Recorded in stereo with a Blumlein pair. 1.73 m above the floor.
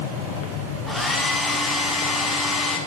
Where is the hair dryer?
5° left, 4.5 m.